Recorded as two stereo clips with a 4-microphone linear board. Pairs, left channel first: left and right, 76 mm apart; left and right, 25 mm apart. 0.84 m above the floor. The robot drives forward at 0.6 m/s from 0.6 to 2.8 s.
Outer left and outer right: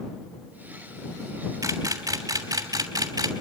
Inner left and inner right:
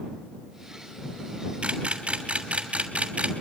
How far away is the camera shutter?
About 3 m.